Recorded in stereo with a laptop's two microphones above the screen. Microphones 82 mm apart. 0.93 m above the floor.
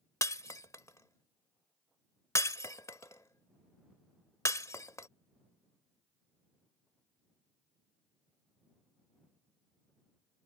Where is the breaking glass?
40° left (ahead or behind).